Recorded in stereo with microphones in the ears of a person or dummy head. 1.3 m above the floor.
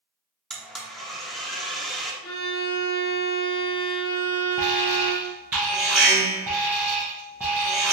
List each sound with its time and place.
0.5 s a blender: 5° left (ahead or behind), 0.6 m
2.2 s a violin: 50° left (ahead or behind), 1.1 m
4.6 s an alarm: 5° right (ahead or behind), 0.5 m